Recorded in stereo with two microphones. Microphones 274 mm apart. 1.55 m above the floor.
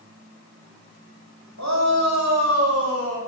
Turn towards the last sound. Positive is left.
turn(degrees=-55)  # may be behind; listen again after turning